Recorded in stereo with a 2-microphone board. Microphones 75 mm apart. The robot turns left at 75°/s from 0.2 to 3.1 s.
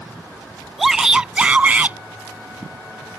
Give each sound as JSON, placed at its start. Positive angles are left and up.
{"t": 0.8, "sound": "a shout", "side_deg": 0}